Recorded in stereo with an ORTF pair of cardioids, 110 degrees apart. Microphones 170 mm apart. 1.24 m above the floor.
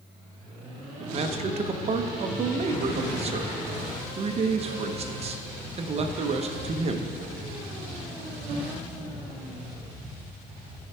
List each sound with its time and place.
1.0 s a man speaking: 40° right, 0.9 m